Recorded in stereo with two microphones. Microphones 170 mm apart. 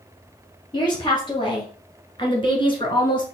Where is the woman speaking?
30° left (ahead or behind), 2.5 m.